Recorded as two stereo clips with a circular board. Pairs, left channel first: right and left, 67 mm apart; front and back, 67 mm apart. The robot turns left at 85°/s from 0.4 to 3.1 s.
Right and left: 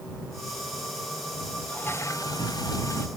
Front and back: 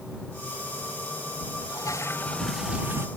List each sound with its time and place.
1.7 s a toilet flushing: 20° right; by 3.1 s 135° right